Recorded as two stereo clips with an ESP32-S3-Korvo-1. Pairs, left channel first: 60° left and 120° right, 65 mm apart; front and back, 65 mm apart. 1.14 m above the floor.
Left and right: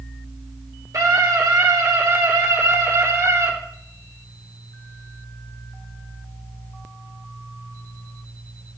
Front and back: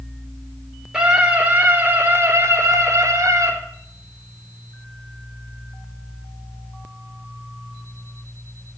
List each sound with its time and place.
0.9 s a scream: 105° right, 3 m; by 3.5 s 150° right, 3.5 m